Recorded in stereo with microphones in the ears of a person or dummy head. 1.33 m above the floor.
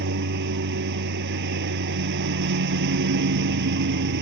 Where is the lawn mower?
55° right (ahead or behind).